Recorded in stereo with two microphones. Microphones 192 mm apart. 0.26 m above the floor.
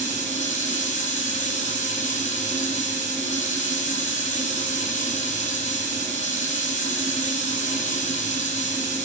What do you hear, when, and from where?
0.0 s running water: 35° left (ahead or behind), 7 m